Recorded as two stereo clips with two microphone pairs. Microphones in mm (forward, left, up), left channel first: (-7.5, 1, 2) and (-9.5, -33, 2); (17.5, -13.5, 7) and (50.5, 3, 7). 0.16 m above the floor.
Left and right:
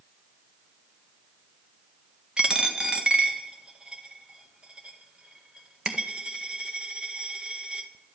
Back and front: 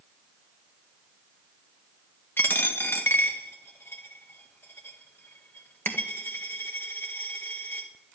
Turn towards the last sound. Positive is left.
turn(degrees=-155)